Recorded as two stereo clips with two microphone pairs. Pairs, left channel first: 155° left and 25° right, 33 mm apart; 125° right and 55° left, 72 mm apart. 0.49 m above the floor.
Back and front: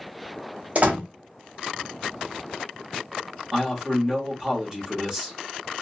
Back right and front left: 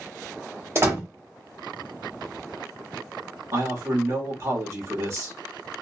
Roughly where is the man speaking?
Ahead left.